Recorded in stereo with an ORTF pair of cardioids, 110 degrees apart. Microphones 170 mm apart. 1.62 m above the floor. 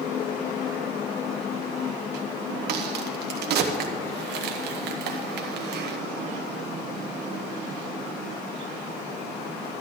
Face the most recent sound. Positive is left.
turn(degrees=-65)